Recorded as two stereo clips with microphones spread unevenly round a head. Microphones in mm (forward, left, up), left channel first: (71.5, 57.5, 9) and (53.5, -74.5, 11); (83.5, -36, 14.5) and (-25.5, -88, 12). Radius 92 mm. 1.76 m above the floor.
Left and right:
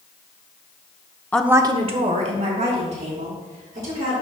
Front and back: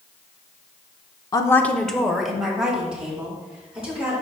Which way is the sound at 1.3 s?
10° left.